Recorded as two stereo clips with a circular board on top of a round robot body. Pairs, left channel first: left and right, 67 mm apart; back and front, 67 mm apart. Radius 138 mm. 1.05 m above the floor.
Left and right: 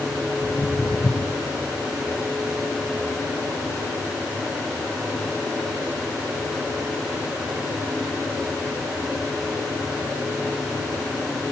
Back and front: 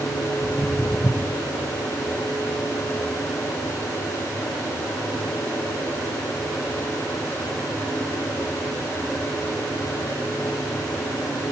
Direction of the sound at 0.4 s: 150° left.